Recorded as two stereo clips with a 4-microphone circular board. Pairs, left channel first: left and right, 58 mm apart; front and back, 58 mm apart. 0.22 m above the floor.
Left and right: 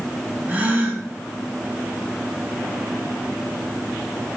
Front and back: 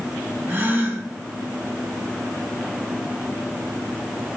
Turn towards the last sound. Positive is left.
turn(degrees=-140)